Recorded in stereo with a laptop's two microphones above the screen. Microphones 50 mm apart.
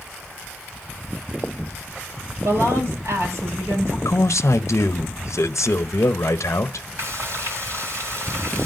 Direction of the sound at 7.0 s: 70° right (ahead or behind).